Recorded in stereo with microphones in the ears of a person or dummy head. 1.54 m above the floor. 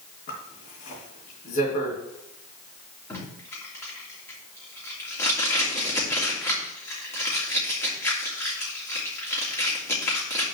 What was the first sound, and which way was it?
A zipper, 50° left (ahead or behind).